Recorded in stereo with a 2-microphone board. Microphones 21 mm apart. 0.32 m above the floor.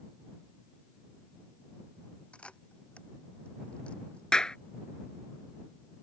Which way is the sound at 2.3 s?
75° left (ahead or behind).